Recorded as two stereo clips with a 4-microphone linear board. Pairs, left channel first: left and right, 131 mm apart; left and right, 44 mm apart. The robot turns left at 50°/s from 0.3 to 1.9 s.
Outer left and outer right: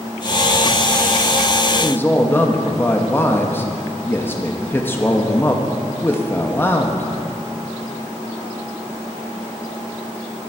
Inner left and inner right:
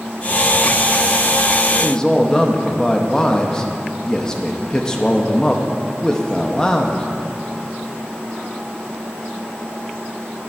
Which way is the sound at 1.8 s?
10° left (ahead or behind).